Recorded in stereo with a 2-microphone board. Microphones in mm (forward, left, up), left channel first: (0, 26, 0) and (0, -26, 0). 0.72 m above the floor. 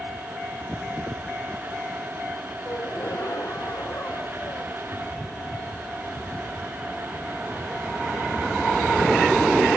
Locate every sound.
2.6 s a gasp: 60° left (ahead or behind)